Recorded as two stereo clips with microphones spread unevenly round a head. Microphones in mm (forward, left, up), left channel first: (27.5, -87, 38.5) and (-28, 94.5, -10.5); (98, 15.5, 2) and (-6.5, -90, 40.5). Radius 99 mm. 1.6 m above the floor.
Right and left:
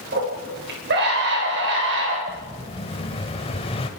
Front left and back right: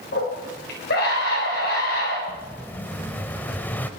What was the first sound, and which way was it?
A scream, 65° left.